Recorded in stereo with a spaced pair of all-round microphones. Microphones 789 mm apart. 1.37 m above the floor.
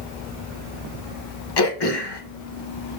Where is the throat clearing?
35° left (ahead or behind), 0.7 m.